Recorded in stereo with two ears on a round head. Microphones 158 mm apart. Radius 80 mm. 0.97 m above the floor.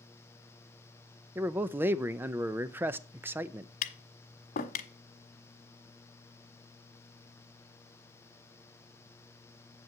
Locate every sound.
1.4 s a man speaking: 10° right (ahead or behind), 0.6 m
3.8 s tapping: 55° left (ahead or behind), 1.3 m